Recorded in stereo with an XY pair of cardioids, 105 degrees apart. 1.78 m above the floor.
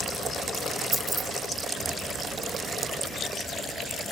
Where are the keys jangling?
30° right, 2.5 m.